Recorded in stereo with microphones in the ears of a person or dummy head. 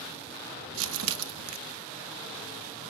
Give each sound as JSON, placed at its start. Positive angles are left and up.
{"t": 0.7, "sound": "crumpling", "side_deg": -70, "distance_m": 0.8}